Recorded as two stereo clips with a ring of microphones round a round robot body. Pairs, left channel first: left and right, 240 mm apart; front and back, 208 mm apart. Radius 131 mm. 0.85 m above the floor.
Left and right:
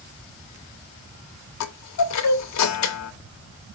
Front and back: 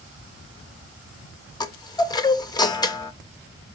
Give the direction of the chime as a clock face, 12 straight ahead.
10 o'clock.